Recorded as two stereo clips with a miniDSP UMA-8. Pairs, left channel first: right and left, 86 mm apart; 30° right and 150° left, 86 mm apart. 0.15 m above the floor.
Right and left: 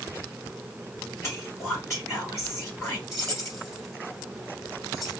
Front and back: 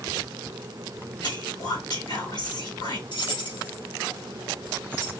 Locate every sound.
1.2 s whispering: 40° right, 3 m
3.1 s keys jangling: 35° right, 3 m